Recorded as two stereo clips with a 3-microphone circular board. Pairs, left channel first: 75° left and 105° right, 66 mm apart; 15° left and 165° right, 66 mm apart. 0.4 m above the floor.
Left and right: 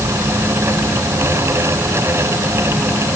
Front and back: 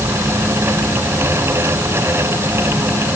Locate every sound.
Only background noise.